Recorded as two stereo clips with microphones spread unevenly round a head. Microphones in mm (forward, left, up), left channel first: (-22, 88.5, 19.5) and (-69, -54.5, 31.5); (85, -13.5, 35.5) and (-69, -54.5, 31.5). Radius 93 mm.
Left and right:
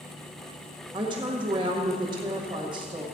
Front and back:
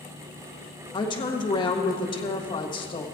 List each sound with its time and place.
0.9 s a woman speaking: 45° right, 1.6 m